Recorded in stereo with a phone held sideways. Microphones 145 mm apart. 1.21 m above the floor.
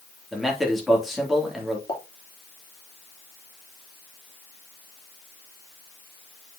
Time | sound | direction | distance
0.3 | a man speaking | centre (ahead or behind) | 2.5 m
1.9 | a pop | 30° left (ahead or behind) | 3 m